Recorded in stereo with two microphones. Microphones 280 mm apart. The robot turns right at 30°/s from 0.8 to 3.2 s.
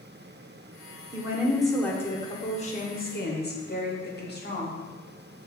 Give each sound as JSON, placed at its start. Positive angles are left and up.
{"t": 1.1, "sound": "a woman speaking", "azimuth_deg": -15, "distance_m": 0.9}